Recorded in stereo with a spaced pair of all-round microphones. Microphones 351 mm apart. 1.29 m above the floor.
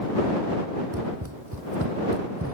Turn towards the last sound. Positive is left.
turn(degrees=-35)  # may be behind; listen again after turning